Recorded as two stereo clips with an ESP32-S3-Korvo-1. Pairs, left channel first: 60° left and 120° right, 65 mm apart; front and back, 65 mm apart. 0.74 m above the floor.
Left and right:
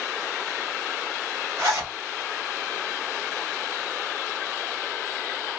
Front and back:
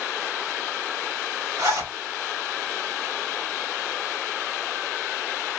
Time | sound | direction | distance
1.6 | a zipper | 160° right | 3 m